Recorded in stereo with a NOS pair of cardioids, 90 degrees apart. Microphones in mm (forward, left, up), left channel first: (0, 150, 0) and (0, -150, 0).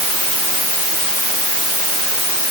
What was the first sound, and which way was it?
Only background noise.